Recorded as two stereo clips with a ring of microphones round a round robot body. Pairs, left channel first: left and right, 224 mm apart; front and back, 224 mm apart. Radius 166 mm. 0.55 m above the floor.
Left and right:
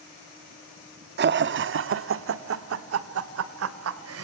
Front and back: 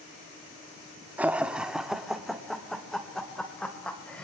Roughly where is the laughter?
Right.